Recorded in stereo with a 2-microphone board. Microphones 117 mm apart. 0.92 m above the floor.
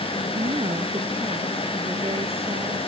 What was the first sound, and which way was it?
A woman speaking, 55° right (ahead or behind).